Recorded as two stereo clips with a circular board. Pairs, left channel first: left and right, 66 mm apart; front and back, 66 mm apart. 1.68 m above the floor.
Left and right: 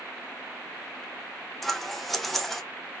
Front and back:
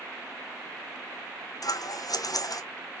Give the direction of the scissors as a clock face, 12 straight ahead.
12 o'clock.